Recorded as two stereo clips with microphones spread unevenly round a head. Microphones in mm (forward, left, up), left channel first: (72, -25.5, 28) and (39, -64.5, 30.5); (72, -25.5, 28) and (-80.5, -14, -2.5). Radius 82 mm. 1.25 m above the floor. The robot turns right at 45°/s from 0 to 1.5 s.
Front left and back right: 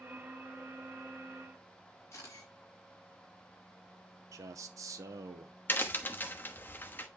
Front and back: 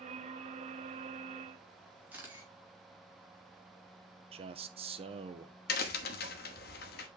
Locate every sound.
2.1 s a camera shutter: 100° left, 2.5 m
4.3 s a man speaking: 140° right, 0.9 m
5.7 s a crack: straight ahead, 1.1 m